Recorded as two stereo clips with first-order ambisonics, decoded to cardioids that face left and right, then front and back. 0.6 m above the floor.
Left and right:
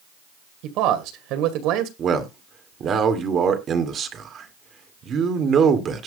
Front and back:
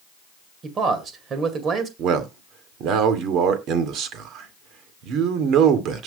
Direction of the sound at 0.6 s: 120° right.